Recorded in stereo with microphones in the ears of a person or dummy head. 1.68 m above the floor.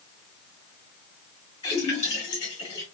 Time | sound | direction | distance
1.6 | a splash | 30° left (ahead or behind) | 1.6 m